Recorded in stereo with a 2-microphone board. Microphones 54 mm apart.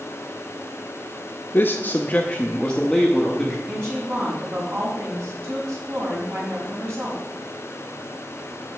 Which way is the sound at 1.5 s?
40° left (ahead or behind).